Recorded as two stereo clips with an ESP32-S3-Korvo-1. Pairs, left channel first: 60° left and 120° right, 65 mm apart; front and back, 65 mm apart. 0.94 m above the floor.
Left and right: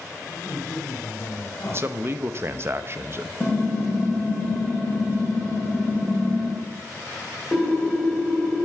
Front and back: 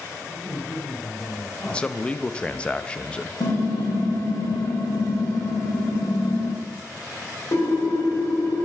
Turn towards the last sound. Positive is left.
turn(degrees=-20)